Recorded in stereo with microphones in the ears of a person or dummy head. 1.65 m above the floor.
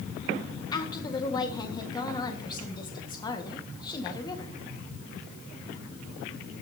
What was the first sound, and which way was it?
A woman speaking, 30° left (ahead or behind).